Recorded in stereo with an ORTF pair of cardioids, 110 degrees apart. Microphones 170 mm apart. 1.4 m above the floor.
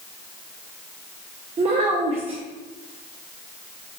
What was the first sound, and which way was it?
A child speaking, 35° right.